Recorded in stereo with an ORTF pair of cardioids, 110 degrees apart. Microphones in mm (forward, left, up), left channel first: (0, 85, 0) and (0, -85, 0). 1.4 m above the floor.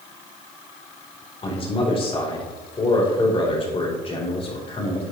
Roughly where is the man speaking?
Ahead left.